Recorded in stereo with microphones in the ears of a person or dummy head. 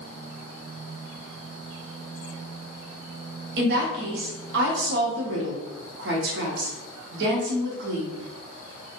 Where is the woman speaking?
65° right (ahead or behind), 0.9 m.